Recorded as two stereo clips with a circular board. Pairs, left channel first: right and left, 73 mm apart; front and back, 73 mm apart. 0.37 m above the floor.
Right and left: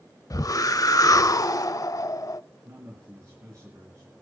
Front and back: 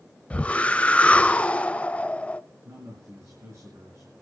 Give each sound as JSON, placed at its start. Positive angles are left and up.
{"t": 0.3, "sound": "a whoosh", "azimuth_deg": -70, "distance_m": 0.6}
{"t": 2.6, "sound": "a man speaking", "azimuth_deg": 135, "distance_m": 4.5}